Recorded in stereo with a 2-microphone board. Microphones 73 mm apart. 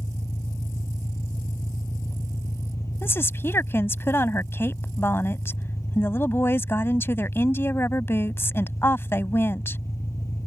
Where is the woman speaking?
35° left (ahead or behind).